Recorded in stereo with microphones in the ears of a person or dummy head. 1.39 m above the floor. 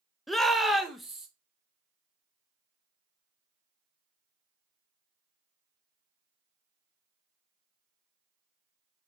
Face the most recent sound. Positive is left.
turn(degrees=0)  # may be behind; listen again after turning